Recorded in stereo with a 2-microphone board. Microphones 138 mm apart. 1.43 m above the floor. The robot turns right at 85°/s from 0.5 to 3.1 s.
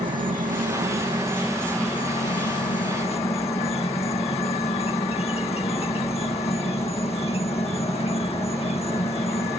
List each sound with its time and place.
0.0 s an insect: 90° right; by 9.6 s 135° left